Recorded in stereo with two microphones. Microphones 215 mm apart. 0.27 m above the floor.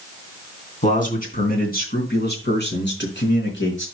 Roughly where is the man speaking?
Left.